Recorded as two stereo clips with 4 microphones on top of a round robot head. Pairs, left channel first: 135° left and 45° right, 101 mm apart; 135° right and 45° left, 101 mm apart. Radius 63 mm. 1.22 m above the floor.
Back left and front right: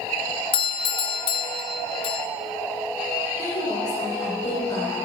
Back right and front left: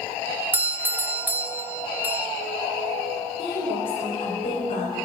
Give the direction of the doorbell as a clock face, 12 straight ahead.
8 o'clock.